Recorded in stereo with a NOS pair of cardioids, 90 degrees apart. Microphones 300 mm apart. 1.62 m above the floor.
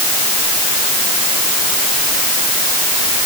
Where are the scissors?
No scissors in this recording.